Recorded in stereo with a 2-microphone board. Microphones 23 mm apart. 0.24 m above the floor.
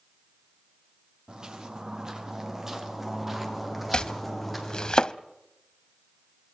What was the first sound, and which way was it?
Footsteps, 45° right (ahead or behind).